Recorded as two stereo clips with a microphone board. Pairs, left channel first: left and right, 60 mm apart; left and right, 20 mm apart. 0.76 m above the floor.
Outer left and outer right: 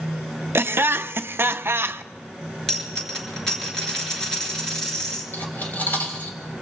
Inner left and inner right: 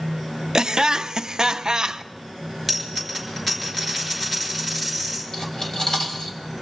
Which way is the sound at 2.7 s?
10° left (ahead or behind).